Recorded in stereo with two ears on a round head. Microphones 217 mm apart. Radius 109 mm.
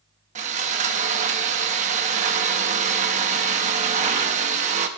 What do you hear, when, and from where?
0.3 s sawing: 30° right (ahead or behind), 0.8 m